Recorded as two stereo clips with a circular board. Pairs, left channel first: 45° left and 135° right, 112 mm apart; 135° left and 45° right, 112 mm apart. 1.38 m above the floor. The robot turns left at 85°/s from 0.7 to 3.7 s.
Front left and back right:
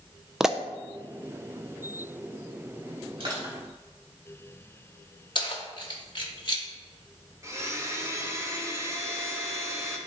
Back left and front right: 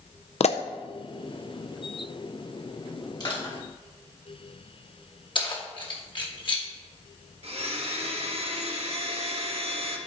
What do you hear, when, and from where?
0.4 s a pop: 140° left, 0.5 m
3.2 s crushing: 175° right, 3.5 m; by 3.5 s 155° left, 3.5 m
5.3 s keys jangling: 90° left, 1.3 m
7.4 s a blender: 70° right, 1.2 m